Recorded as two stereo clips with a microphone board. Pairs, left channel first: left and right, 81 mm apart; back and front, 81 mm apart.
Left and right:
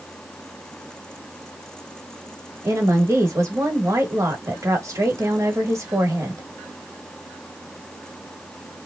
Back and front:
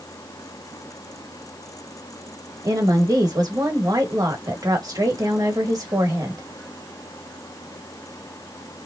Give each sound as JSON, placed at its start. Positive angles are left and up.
{"t": 2.6, "sound": "a woman speaking", "azimuth_deg": -40, "distance_m": 1.5}